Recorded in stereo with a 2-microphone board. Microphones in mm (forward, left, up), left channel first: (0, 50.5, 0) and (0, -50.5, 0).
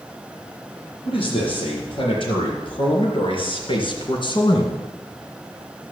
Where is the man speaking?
55° left (ahead or behind), 6.5 m; by 4.9 s 45° left (ahead or behind), 2 m.